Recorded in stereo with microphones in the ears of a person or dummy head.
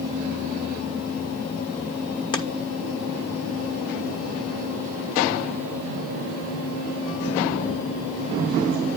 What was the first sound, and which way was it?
Chopping, 25° left (ahead or behind).